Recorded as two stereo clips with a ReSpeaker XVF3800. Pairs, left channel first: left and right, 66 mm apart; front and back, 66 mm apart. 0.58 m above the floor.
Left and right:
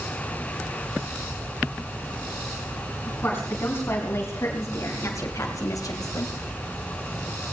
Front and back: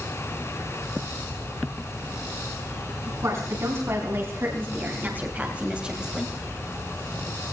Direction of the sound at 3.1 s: 145° left.